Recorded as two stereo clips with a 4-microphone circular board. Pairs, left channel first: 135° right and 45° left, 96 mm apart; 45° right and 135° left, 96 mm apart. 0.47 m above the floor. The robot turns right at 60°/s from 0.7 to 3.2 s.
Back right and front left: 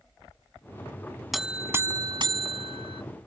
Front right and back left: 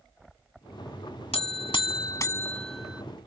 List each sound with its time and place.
1.3 s a buzzer: 45° right; by 3.0 s 60° left